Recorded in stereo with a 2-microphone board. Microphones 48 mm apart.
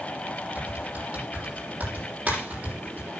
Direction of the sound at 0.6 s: 30° right (ahead or behind).